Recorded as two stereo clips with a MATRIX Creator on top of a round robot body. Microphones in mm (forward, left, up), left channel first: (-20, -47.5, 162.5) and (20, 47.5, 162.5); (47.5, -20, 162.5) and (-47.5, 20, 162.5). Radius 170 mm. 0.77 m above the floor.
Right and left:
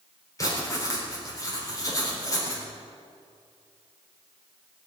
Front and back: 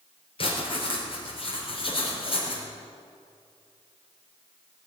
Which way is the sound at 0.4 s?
55° right.